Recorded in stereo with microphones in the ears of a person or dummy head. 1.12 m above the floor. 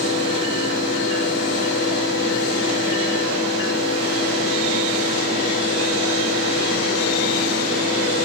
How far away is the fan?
About 6 m.